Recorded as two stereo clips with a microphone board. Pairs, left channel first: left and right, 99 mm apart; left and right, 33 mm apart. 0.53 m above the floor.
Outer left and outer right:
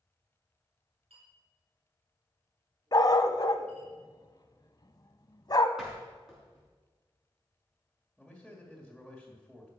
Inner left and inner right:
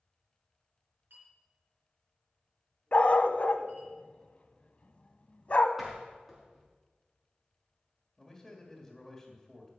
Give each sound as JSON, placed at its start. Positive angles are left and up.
{"t": 1.1, "sound": "a clink", "side_deg": -75, "distance_m": 5.0}
{"t": 2.9, "sound": "a dog barking", "side_deg": 40, "distance_m": 0.7}
{"t": 5.8, "sound": "a door slam", "side_deg": -5, "distance_m": 5.0}
{"t": 8.2, "sound": "a man speaking", "side_deg": 0, "distance_m": 2.0}